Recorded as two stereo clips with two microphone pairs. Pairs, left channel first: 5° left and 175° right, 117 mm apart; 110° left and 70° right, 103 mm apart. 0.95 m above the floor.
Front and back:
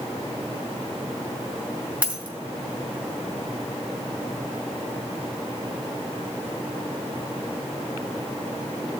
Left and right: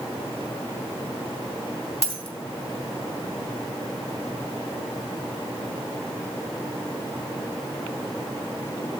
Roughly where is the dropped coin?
Left.